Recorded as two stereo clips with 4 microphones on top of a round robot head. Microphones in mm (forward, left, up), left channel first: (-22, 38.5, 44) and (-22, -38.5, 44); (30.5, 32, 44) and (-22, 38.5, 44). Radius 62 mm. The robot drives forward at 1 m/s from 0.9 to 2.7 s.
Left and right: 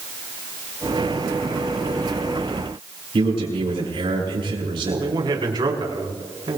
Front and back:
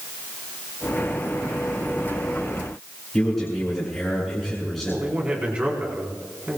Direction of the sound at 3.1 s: 95° right.